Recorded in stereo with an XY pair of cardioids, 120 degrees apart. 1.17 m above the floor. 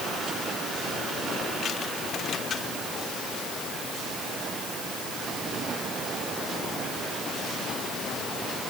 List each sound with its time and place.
Only background noise.